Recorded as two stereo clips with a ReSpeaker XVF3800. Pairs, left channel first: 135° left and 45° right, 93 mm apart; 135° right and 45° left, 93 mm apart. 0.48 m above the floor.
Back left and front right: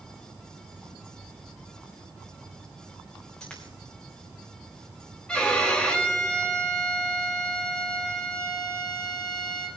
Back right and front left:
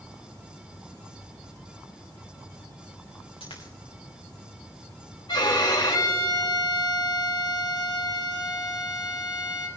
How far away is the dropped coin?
About 3 m.